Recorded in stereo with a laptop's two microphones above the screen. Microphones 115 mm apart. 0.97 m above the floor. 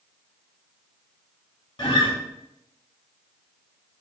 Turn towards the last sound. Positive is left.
turn(degrees=45)  # may be behind; listen again after turning